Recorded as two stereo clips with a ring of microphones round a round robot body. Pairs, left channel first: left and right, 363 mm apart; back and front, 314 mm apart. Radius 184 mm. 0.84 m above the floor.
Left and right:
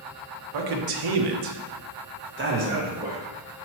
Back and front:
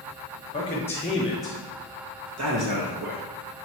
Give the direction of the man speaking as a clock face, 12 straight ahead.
4 o'clock.